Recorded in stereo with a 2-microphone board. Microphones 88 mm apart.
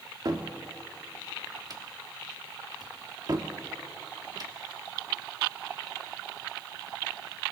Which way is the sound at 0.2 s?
45° right (ahead or behind).